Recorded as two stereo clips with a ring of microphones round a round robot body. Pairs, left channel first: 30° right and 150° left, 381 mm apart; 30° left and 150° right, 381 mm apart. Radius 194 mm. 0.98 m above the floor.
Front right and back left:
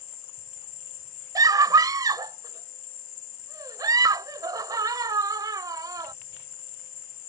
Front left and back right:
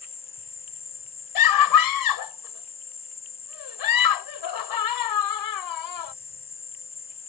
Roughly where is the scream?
Left.